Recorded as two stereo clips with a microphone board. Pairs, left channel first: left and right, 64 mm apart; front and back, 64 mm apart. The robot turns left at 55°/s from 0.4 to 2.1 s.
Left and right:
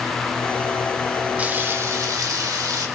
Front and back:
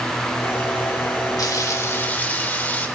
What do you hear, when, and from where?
1.4 s frying: 20° right, 1.7 m; by 2.9 s 60° right, 1.7 m